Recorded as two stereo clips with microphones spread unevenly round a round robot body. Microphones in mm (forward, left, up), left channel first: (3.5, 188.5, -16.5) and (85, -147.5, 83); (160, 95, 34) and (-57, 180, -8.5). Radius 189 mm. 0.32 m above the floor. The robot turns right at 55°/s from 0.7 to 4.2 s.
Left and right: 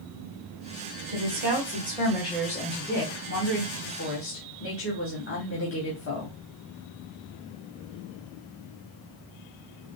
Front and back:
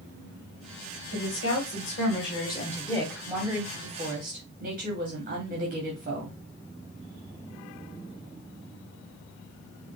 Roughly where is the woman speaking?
Ahead right.